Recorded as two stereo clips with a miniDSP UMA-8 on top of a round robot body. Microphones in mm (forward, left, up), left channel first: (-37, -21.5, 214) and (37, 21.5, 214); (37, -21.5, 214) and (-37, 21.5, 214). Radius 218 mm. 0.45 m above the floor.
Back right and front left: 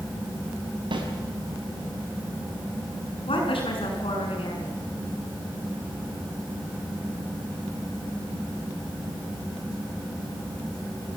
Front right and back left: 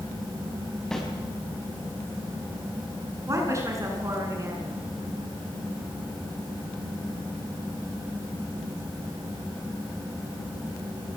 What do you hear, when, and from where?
0.9 s a snare drum: 55° left, 5 m
3.3 s a woman speaking: 155° right, 7.5 m